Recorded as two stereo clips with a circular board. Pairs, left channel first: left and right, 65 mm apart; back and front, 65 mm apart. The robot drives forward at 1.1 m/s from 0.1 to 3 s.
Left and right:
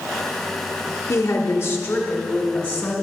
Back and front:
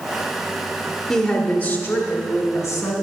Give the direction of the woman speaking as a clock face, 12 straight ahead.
9 o'clock.